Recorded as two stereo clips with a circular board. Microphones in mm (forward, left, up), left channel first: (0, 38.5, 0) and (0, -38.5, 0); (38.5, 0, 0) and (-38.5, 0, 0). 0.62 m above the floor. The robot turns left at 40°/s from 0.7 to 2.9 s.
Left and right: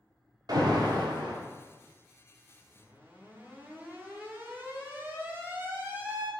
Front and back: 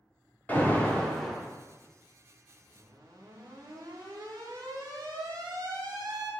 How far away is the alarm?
About 0.7 m.